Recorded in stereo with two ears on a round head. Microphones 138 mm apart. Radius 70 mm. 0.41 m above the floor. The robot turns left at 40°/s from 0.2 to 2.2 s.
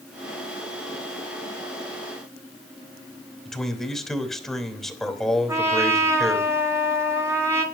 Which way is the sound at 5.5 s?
15° right (ahead or behind).